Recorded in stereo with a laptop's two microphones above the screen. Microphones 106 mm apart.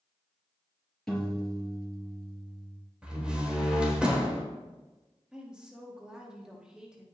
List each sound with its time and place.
1.1 s a piano: 5° left (ahead or behind), 4 m
3.0 s a door slam: 10° right (ahead or behind), 3 m
5.3 s a woman speaking: 10° right (ahead or behind), 1.7 m